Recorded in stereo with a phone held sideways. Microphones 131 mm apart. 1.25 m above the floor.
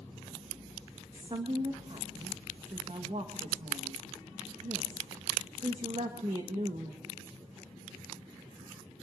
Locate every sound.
1.1 s a woman speaking: 50° right (ahead or behind), 1.2 m